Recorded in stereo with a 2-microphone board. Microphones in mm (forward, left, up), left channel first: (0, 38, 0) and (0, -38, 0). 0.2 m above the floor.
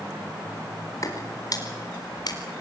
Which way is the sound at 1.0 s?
45° left (ahead or behind).